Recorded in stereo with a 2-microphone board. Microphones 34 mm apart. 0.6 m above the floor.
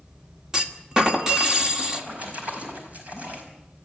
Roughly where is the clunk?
Centre.